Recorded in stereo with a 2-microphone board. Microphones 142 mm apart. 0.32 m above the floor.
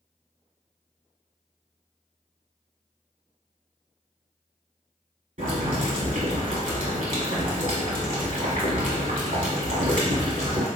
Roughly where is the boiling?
Right.